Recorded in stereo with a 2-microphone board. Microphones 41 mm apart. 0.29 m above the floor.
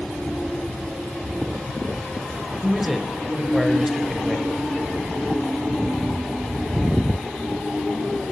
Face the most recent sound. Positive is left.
turn(degrees=-5)  # may be behind; listen again after turning